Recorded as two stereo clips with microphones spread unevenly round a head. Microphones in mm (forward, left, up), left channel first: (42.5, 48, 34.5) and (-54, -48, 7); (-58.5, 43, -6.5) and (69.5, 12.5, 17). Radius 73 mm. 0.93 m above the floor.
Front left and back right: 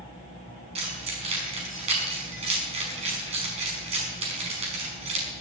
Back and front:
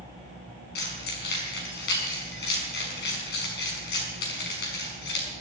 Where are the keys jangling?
175° left, 5.5 m.